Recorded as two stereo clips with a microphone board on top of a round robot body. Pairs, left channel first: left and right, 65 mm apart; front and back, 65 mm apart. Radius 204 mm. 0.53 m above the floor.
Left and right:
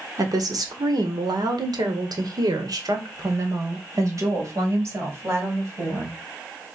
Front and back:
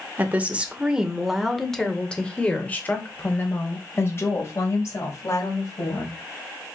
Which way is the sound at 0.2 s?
115° right.